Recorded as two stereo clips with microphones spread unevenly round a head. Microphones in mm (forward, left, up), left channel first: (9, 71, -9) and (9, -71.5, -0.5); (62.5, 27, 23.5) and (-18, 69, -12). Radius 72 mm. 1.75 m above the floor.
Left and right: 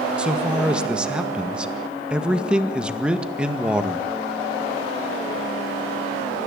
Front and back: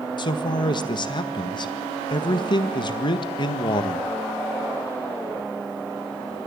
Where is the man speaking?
10° right, 1.8 m.